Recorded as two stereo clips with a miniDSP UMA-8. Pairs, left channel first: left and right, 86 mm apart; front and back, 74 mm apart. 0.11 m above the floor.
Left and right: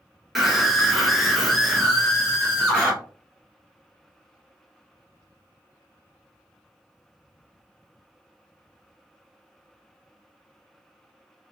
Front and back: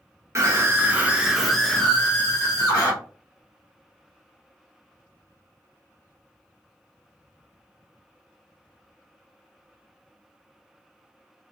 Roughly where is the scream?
Behind.